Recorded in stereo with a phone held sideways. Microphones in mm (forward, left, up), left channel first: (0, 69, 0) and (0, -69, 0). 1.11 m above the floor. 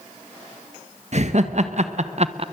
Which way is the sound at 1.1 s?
55° right (ahead or behind).